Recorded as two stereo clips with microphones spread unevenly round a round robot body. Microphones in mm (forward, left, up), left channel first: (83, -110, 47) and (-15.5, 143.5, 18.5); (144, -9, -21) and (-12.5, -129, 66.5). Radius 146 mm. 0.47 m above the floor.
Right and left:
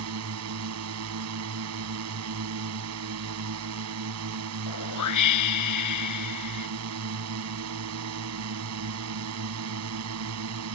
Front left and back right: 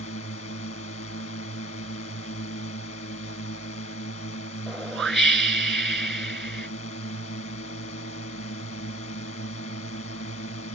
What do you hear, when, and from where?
0.0 s a drone: 90° left
4.7 s a whoosh: 50° right